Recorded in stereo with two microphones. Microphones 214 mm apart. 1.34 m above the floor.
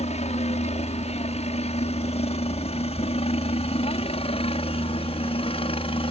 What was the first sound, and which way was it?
A helicopter, 30° left (ahead or behind).